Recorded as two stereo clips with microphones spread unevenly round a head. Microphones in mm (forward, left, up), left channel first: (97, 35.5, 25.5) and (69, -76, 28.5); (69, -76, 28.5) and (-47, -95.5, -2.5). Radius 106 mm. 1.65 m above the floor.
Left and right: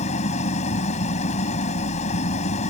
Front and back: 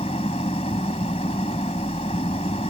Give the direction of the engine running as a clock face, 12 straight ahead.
10 o'clock.